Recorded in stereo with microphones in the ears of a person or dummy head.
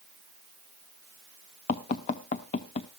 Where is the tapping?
30° left (ahead or behind), 0.8 m.